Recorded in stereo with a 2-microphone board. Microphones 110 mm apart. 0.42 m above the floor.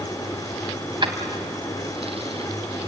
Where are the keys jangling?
45° right (ahead or behind), 2 m; by 2.9 s 70° right (ahead or behind), 3 m.